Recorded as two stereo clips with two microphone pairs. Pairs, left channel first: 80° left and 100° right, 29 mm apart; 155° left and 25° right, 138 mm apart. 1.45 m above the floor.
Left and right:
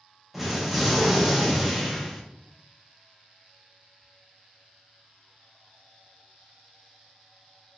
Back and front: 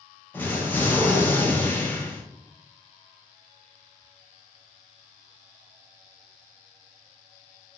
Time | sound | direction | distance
0.3 | an explosion | 165° right | 0.6 m